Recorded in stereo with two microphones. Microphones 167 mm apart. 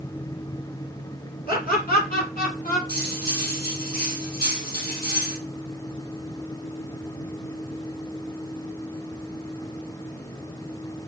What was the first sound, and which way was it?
Laughter, 60° left (ahead or behind).